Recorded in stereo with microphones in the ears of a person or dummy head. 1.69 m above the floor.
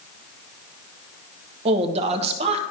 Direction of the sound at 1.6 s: 30° right (ahead or behind).